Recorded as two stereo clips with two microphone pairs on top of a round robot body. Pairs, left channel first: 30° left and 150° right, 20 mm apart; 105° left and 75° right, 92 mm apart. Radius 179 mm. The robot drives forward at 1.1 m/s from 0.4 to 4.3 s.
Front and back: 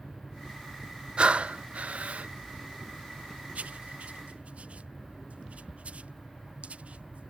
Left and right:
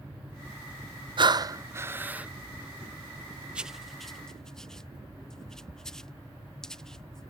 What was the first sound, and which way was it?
Breathing, 105° right.